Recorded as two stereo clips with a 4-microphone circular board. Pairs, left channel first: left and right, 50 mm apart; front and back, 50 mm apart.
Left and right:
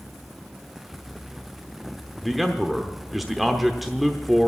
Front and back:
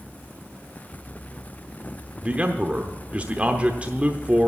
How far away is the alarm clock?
I don't hear an alarm clock.